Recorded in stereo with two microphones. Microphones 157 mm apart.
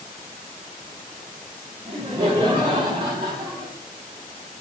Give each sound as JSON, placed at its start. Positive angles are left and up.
{"t": 1.9, "sound": "laughter", "side_deg": -30, "distance_m": 1.6}